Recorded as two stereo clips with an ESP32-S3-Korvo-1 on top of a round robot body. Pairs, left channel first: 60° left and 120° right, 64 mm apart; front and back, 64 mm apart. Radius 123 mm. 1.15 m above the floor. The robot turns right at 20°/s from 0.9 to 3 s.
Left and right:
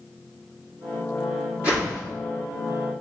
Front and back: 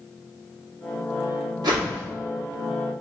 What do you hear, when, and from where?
1.6 s a whoosh: 170° left, 2.0 m; by 2.0 s 175° left, 2.0 m